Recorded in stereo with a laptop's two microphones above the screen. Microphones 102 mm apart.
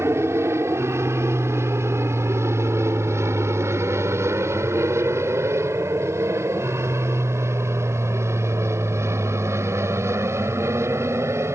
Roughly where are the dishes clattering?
I don't hear dishes clattering.